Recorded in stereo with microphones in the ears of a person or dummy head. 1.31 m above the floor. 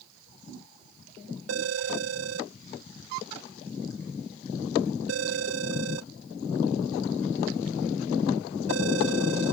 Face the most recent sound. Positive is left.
turn(degrees=-85)